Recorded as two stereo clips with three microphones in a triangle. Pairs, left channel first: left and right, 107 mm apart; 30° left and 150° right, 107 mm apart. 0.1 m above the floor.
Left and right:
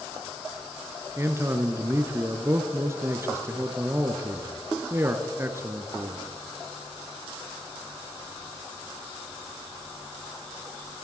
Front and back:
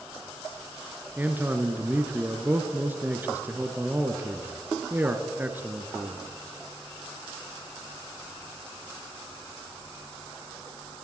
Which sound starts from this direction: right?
A man speaking, at 1.2 s.